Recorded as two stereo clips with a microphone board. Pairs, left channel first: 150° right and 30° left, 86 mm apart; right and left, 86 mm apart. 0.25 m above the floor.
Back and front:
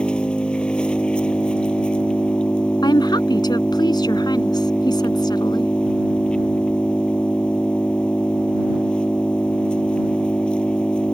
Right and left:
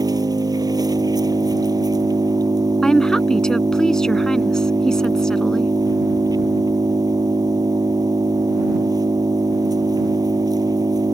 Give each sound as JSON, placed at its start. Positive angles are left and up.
{"t": 0.0, "sound": "an engine running", "azimuth_deg": 130}
{"t": 2.8, "sound": "a woman speaking", "azimuth_deg": -170}